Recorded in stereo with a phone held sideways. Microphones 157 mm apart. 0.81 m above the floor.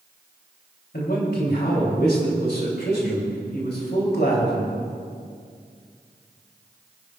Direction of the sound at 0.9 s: 85° left.